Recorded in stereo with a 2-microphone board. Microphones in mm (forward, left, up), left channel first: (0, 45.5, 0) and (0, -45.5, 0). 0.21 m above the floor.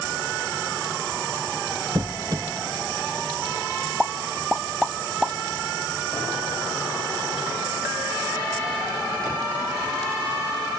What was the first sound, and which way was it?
A squeak, 50° right (ahead or behind).